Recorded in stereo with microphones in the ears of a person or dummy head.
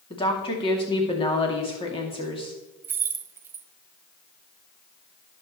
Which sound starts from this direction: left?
A woman speaking, at 0.1 s.